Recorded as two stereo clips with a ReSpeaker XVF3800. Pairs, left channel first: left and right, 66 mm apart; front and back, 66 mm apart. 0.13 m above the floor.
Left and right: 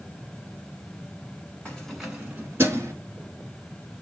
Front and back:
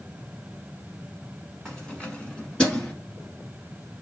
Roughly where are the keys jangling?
Ahead left.